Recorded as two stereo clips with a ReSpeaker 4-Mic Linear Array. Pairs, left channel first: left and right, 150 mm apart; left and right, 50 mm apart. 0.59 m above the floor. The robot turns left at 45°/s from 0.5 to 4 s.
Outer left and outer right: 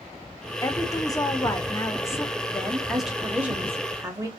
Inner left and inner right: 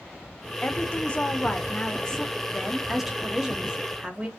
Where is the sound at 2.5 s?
10° left (ahead or behind), 1.0 m; by 4.3 s 20° right (ahead or behind), 1.0 m.